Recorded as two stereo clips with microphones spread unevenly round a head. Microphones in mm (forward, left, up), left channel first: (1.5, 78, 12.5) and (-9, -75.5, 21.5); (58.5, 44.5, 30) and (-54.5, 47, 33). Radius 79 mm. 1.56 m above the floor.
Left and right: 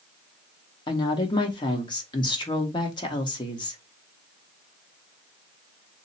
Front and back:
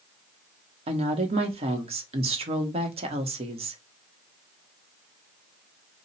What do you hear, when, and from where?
0.9 s a woman speaking: 150° left, 1.2 m